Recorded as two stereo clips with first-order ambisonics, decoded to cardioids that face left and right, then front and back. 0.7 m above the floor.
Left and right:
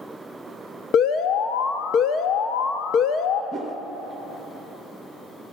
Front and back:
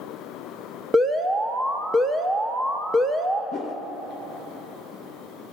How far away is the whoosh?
About 0.7 m.